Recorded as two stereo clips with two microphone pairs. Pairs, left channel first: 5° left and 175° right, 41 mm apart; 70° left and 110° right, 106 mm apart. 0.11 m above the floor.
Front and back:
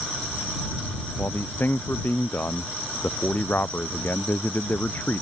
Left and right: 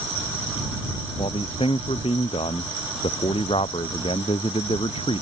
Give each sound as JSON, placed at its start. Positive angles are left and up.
{"t": 1.2, "sound": "a man speaking", "azimuth_deg": 40}